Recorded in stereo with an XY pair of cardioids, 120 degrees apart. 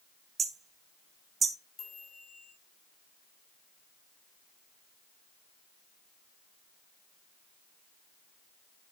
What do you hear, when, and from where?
0.4 s hammering: 40° right, 0.8 m
1.8 s a chime: 35° left, 4 m